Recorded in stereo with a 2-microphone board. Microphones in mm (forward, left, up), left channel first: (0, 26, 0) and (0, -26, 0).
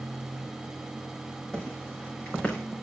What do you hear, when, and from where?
1.5 s footsteps: 15° left (ahead or behind), 7 m